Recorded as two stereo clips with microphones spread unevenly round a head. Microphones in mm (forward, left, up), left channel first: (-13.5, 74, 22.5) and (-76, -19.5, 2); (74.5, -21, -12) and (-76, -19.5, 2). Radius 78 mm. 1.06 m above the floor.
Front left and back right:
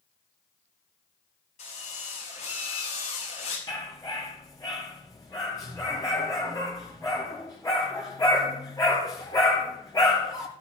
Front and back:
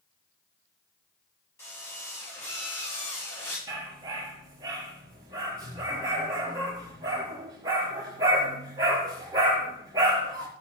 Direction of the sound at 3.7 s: 115° left.